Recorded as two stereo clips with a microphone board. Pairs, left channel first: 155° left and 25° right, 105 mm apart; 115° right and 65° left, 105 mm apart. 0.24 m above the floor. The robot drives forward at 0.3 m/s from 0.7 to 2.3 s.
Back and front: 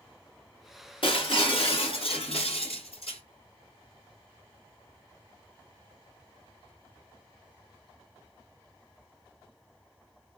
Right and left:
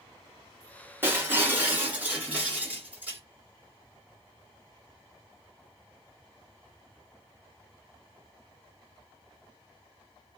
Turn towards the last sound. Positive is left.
turn(degrees=140)